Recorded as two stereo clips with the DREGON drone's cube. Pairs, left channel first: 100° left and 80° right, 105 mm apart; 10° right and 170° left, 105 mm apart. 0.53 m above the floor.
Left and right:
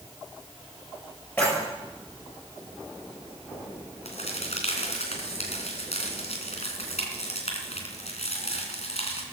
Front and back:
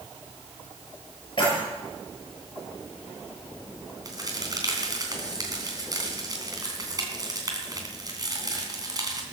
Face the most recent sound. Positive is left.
turn(degrees=115)